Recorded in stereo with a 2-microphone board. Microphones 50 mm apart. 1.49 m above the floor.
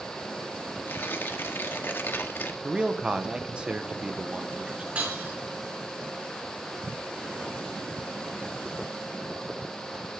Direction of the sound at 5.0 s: 30° right (ahead or behind).